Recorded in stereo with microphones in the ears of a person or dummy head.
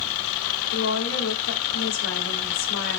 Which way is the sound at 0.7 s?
70° left (ahead or behind).